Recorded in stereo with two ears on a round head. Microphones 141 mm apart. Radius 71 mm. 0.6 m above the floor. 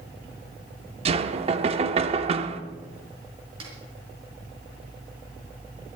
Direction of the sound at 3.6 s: 35° right (ahead or behind).